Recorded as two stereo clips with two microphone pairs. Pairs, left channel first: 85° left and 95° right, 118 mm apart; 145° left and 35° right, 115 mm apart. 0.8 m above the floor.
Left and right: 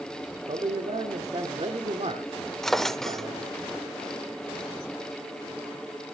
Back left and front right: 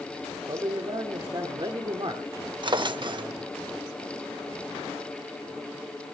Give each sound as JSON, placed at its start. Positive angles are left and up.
{"t": 0.5, "sound": "a man speaking", "azimuth_deg": -80, "distance_m": 1.6}
{"t": 2.6, "sound": "a drawer", "azimuth_deg": 0, "distance_m": 0.7}